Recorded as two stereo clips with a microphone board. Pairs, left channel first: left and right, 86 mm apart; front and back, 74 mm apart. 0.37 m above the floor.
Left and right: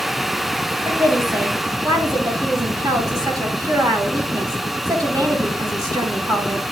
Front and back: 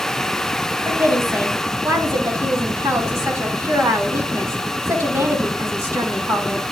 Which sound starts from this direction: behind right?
A woman speaking, at 0.8 s.